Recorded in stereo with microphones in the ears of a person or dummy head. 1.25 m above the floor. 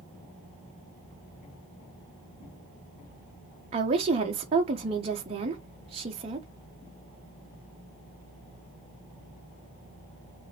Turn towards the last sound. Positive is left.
turn(degrees=-25)  # may be behind; listen again after turning